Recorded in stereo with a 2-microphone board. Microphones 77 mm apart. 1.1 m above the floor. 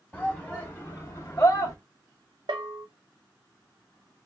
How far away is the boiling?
No boiling in this recording.